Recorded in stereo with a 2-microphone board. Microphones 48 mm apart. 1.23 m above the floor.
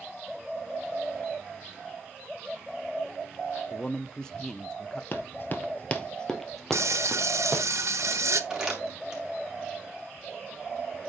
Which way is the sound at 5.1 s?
50° left (ahead or behind).